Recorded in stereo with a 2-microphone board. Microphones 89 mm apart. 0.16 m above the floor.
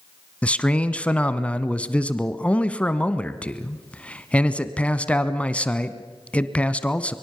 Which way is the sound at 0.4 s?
15° left (ahead or behind).